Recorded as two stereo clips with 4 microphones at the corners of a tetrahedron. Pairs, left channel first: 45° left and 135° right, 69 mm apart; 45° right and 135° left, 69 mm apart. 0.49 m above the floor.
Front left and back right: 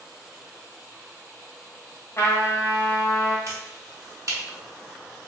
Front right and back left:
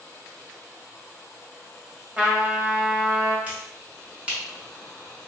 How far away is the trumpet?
About 0.9 m.